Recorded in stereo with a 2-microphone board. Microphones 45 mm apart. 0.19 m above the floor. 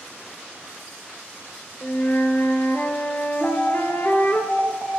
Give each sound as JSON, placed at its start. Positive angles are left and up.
{"t": 1.8, "sound": "a flute", "side_deg": 55, "distance_m": 1.9}
{"t": 3.4, "sound": "an alarm", "side_deg": -20, "distance_m": 3.5}